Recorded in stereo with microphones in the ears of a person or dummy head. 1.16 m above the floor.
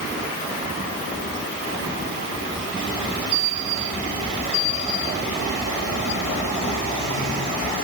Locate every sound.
Only background noise.